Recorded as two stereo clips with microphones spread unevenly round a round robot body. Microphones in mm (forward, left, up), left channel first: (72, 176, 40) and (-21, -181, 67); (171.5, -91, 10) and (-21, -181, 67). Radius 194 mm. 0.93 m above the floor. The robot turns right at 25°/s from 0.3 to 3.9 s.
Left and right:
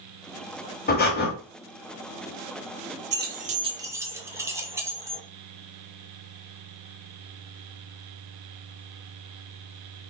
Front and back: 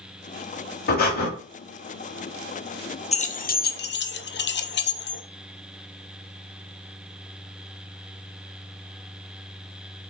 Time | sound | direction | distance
0.9 | breathing | 30° left | 0.8 m
3.1 | keys jangling | 40° right | 0.6 m